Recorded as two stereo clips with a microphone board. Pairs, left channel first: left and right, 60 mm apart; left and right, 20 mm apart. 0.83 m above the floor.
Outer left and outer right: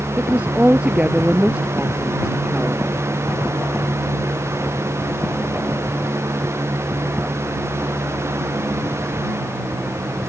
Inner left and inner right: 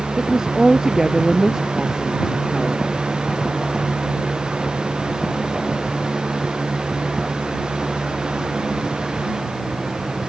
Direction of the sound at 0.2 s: 20° right (ahead or behind).